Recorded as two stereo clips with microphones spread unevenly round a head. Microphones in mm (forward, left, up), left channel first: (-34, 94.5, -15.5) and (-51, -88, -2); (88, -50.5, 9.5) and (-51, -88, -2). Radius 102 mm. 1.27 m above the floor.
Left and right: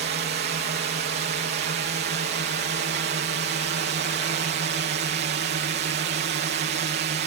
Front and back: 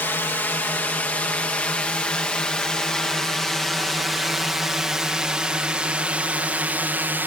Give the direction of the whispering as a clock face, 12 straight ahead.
I don't hear whispering.